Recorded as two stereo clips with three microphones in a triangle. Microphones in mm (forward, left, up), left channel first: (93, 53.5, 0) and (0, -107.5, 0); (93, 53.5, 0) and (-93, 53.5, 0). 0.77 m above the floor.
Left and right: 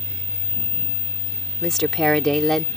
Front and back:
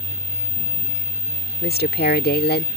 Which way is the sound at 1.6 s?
30° right.